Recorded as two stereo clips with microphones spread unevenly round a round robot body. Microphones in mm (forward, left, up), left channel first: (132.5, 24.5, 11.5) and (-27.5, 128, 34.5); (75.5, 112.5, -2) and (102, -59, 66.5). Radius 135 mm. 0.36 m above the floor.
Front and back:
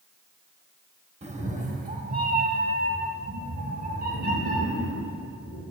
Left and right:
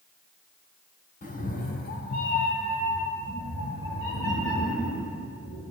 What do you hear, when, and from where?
1.2 s a cat meowing: 85° left, 0.9 m; by 5.6 s 110° left, 3 m